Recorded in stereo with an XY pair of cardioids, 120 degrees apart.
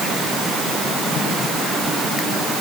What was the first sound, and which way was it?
Only background noise.